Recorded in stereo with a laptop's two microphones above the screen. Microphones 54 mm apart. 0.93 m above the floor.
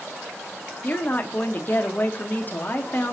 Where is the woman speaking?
35° left (ahead or behind), 0.7 m.